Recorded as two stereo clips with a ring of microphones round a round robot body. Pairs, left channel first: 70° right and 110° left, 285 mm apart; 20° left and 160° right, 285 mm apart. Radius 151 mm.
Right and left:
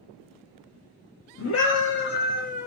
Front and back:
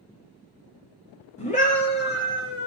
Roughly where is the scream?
Ahead right.